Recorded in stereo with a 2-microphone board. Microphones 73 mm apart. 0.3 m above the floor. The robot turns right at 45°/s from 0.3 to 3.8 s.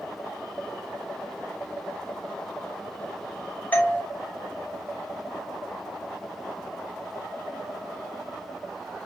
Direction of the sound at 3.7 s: 20° left (ahead or behind).